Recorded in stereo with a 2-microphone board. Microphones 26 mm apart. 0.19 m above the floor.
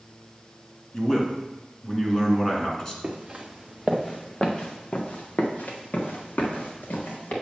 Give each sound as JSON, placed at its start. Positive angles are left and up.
{"t": 0.9, "sound": "a man speaking", "side_deg": 20, "distance_m": 1.9}
{"t": 3.0, "sound": "footsteps", "side_deg": -25, "distance_m": 1.5}